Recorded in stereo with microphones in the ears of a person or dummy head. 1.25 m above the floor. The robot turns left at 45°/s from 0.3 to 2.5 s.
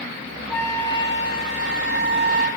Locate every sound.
0.5 s a flute: 170° left, 1.9 m; by 2.5 s 85° left, 1.9 m